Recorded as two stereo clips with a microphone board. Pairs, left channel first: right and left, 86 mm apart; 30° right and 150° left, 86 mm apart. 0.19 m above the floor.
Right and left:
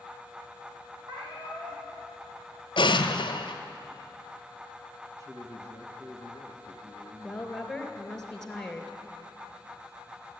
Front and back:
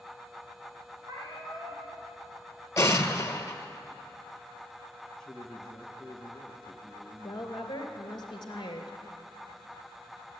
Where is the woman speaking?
5° right, 2.5 m.